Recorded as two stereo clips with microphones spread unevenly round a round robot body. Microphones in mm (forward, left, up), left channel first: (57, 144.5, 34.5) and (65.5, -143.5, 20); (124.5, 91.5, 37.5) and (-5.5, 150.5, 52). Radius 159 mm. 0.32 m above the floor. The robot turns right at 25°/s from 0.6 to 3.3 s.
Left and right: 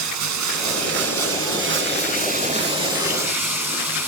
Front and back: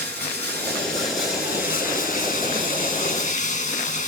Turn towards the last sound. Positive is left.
turn(degrees=-5)